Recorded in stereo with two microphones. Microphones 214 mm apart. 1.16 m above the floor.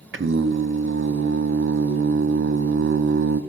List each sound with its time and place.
0.1 s singing: 65° right (ahead or behind), 0.6 m